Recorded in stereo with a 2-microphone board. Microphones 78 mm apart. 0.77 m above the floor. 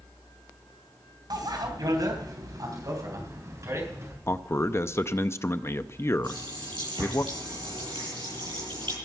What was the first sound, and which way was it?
A bicycle bell, 65° right (ahead or behind).